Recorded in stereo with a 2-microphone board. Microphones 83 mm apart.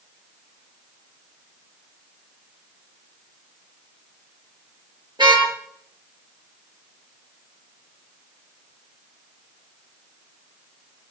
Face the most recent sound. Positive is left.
turn(degrees=-70)  # may be behind; listen again after turning